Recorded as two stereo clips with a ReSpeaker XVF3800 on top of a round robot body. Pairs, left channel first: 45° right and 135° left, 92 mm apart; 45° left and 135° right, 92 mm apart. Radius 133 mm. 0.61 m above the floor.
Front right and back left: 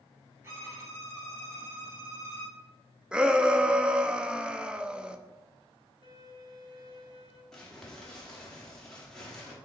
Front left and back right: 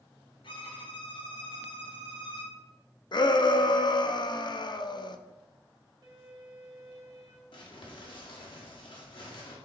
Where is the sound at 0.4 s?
70° left, 3 m.